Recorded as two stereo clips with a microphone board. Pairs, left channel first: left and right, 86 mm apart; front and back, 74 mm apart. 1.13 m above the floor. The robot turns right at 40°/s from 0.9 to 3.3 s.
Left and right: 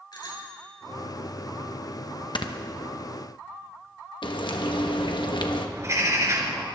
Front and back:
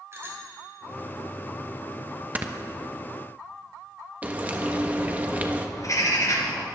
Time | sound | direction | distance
0.1 | a bicycle bell | 125° left | 3.5 m
2.4 | snoring | 115° left | 0.9 m
4.2 | frying | 115° left | 1.2 m
5.8 | a bird | 35° right | 2.5 m